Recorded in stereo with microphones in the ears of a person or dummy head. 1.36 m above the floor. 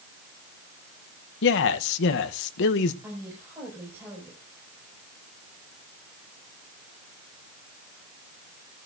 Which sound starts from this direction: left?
A man speaking, at 1.4 s.